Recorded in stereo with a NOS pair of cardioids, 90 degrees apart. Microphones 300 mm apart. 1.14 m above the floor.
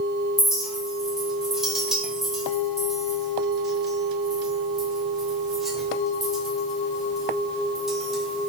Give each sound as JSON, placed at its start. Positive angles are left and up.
{"t": 0.4, "sound": "a clink", "azimuth_deg": 0, "distance_m": 0.5}